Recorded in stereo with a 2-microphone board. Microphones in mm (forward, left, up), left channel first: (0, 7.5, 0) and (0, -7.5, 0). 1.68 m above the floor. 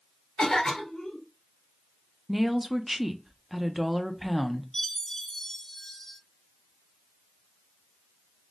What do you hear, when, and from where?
0.4 s a cough: 80° left, 2 m
2.3 s a woman speaking: 15° right (ahead or behind), 0.6 m
4.7 s a chime: 45° left (ahead or behind), 1.5 m